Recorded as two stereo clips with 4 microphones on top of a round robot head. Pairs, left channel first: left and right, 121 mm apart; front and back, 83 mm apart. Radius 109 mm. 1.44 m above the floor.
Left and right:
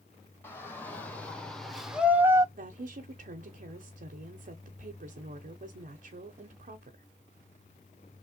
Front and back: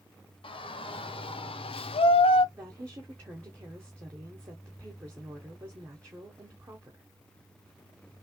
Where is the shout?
15° left, 1.5 m; by 2.5 s 20° right, 0.5 m.